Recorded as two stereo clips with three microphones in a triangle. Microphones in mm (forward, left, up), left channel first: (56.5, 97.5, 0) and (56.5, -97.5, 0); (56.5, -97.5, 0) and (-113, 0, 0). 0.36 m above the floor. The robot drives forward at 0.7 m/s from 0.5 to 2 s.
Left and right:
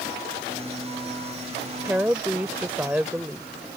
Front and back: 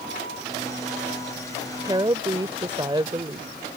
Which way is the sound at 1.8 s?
160° right.